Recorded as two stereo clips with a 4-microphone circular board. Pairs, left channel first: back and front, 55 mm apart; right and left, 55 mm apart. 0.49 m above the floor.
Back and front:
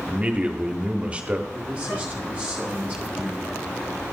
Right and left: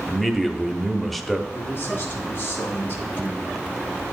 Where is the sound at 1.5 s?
70° right, 2 m.